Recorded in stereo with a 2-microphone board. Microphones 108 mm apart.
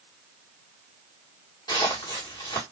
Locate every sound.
1.7 s footsteps: 40° left (ahead or behind), 1.9 m